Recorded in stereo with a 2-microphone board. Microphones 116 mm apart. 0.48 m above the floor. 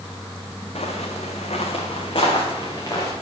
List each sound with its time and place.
0.8 s footsteps: 75° left (ahead or behind), 1.9 m; by 3.1 s 35° left (ahead or behind), 3 m